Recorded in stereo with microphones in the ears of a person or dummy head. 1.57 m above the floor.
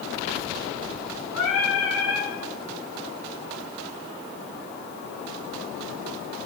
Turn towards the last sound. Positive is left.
turn(degrees=75)  # may be behind; listen again after turning